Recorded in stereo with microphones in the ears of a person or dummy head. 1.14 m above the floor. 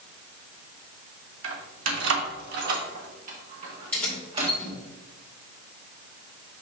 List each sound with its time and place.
1.4 s keys jangling: 85° right, 1.2 m; by 4.5 s 25° right (ahead or behind), 1.9 m
3.9 s keys jangling: 10° left (ahead or behind), 2.5 m